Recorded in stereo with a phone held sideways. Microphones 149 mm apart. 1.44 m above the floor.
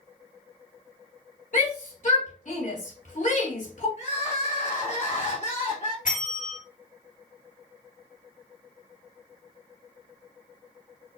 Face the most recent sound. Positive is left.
turn(degrees=60)  # may be behind; listen again after turning